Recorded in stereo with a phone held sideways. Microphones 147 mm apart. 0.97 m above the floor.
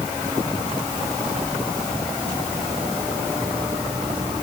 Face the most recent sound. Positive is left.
No sound to turn to.